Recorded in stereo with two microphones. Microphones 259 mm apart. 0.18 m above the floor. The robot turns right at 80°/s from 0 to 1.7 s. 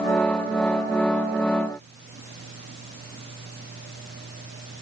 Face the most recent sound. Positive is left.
No sound to turn to.